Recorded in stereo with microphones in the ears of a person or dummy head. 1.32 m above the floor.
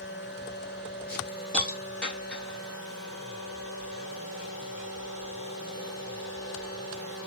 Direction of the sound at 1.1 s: 5° left (ahead or behind).